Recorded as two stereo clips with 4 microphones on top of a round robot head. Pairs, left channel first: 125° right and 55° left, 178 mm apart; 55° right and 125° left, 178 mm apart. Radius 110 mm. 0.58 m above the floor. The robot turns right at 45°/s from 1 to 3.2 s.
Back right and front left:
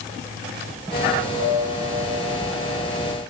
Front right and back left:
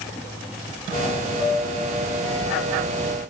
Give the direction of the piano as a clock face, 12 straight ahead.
10 o'clock.